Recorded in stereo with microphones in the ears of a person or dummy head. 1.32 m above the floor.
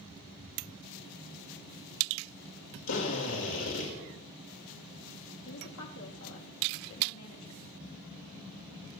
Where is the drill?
80° left, 6 m.